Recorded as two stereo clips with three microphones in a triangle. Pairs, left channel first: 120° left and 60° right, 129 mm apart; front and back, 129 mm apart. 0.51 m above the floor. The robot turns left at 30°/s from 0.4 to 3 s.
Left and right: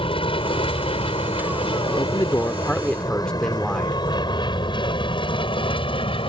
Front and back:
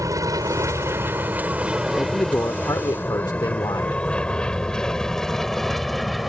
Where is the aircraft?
130° left; by 6.3 s 90° left.